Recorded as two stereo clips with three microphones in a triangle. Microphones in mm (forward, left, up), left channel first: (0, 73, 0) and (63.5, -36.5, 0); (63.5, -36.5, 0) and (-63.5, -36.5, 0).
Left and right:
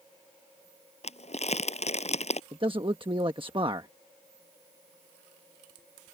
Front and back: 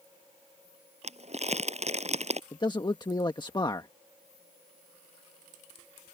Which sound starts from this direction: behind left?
Crumpling, at 1.0 s.